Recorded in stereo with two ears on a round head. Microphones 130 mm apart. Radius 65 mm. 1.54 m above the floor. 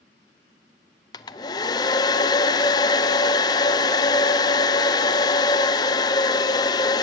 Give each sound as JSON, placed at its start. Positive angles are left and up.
{"t": 1.1, "sound": "a hair dryer", "side_deg": 25, "distance_m": 0.7}